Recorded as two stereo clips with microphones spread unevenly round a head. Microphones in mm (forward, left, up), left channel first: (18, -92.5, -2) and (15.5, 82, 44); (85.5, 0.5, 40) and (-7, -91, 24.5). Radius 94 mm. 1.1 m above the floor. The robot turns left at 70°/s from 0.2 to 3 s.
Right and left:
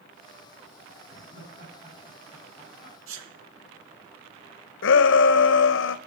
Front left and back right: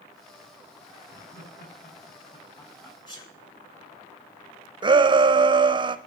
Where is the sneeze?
110° left, 1.4 m.